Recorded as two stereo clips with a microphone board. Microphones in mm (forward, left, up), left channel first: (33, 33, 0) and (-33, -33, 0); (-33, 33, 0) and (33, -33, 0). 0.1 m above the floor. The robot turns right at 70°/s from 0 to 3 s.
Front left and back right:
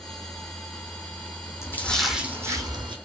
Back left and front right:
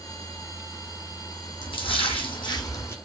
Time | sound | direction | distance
1.6 | a splash | 105° left | 0.7 m